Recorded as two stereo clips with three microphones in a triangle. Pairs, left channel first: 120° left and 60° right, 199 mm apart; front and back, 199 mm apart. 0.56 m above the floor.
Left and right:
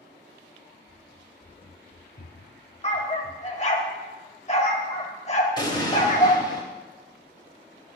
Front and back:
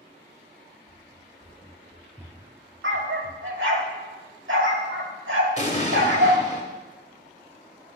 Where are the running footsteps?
35° left, 1.0 m; by 3.8 s 140° left, 1.6 m.